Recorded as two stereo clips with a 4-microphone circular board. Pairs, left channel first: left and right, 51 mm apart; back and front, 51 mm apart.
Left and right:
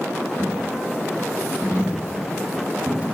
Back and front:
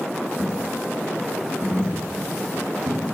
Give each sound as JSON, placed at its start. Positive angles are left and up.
{"t": 0.4, "sound": "a dropped coin", "azimuth_deg": -20, "distance_m": 1.7}